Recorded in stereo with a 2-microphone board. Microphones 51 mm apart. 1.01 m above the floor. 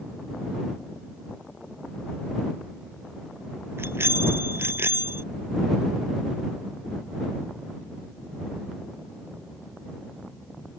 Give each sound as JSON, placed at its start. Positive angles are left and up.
{"t": 3.8, "sound": "a bicycle bell", "side_deg": -50}